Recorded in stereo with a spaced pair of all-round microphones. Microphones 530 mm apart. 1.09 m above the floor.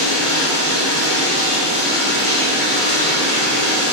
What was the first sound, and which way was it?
Running water, 70° left (ahead or behind).